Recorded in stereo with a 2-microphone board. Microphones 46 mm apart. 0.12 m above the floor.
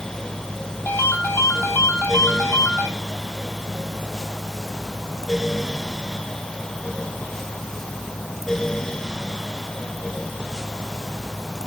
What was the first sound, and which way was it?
A ringtone, 65° left (ahead or behind).